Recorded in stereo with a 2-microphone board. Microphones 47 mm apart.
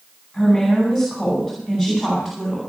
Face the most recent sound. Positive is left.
turn(degrees=-5)  # may be behind; listen again after turning